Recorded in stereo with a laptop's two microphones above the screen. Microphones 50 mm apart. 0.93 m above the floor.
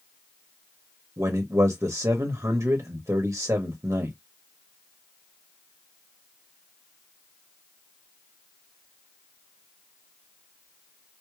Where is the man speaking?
75° right (ahead or behind), 0.9 m.